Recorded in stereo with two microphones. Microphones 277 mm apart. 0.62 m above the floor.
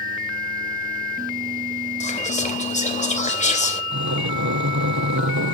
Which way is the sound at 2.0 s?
25° left (ahead or behind).